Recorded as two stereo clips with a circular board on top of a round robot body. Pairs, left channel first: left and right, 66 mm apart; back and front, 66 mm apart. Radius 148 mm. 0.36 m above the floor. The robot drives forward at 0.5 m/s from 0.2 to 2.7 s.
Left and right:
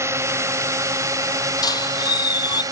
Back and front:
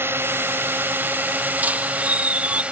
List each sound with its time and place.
0.0 s a drone: 50° right; by 2.7 s 70° right
1.6 s a squeak: 65° left; by 2.6 s 70° left